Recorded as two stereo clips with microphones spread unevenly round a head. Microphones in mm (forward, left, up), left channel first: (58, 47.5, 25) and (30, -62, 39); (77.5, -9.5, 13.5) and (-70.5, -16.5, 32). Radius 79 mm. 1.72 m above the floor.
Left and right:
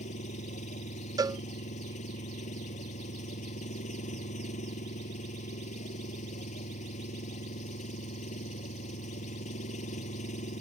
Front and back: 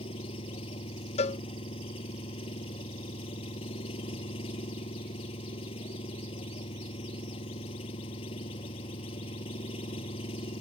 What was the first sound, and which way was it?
An engine running, 60° left.